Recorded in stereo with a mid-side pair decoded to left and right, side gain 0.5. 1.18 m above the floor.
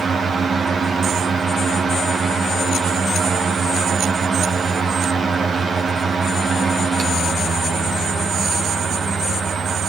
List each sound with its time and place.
0.0 s a fan: 50° right, 1.4 m